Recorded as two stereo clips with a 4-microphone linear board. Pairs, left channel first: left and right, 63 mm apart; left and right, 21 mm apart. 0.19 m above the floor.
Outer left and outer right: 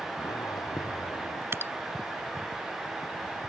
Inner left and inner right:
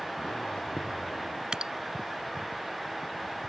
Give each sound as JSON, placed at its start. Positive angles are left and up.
{"t": 0.2, "sound": "a zipper", "side_deg": 85}
{"t": 1.5, "sound": "dripping", "side_deg": -45}